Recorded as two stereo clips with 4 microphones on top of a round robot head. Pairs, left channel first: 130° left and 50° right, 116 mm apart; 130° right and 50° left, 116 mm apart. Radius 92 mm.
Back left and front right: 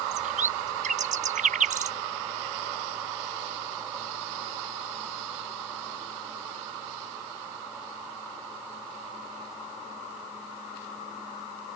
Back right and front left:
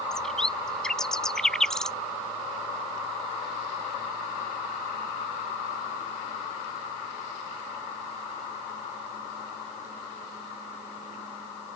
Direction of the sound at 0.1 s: 45° right.